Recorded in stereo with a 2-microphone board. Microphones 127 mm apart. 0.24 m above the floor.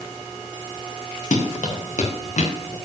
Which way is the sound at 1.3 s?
75° left (ahead or behind).